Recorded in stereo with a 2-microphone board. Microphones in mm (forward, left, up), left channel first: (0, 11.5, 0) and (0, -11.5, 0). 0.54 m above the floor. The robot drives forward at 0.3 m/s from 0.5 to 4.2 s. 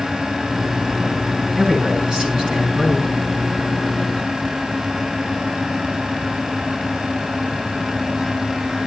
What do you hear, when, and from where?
1.6 s a man speaking: 50° right (ahead or behind), 7.5 m; by 3.1 s 45° right (ahead or behind), 8 m